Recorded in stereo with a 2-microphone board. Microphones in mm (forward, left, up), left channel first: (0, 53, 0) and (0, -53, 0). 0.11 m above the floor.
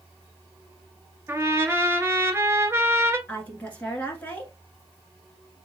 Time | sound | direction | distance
1.3 | a trumpet | 25° right (ahead or behind) | 0.7 m
3.3 | a woman speaking | 15° left (ahead or behind) | 1.1 m